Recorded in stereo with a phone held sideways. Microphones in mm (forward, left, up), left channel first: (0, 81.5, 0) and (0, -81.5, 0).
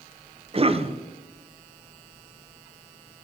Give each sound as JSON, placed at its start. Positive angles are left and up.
{"t": 0.5, "sound": "a cough", "side_deg": -40, "distance_m": 0.6}